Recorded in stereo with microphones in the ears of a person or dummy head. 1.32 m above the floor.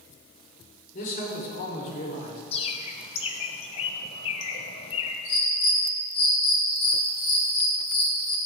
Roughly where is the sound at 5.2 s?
Left.